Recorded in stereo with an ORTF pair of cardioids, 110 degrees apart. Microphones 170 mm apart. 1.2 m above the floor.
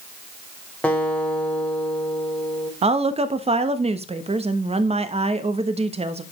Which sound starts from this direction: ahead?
A guitar, at 0.8 s.